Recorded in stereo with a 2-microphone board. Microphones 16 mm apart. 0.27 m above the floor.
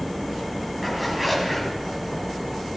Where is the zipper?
5° right (ahead or behind), 1.7 m.